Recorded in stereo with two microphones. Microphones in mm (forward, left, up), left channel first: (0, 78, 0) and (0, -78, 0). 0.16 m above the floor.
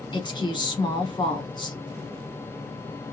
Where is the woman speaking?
30° left (ahead or behind), 1.1 m.